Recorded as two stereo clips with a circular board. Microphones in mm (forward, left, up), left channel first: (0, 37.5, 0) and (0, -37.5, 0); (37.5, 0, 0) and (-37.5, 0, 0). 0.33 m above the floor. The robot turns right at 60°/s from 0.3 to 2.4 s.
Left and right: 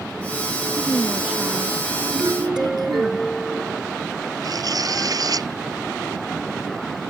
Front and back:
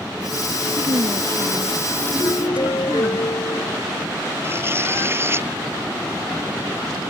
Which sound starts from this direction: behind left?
A woman speaking, at 0.8 s.